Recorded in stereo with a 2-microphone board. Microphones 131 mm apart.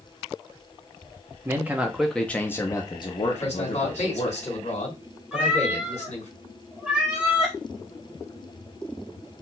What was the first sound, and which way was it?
A man speaking, 20° right (ahead or behind).